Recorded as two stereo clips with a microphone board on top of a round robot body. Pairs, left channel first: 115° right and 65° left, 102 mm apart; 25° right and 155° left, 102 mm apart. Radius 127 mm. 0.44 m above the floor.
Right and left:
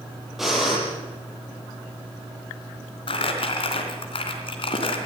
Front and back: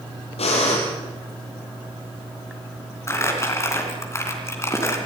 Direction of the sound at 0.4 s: 20° right.